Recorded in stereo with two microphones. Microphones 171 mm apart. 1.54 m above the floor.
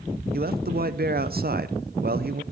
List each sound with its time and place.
0.3 s a man speaking: 65° right (ahead or behind), 0.7 m